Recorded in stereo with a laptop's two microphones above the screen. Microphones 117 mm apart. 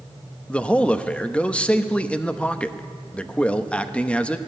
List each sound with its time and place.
0.5 s a man speaking: 10° left (ahead or behind), 0.8 m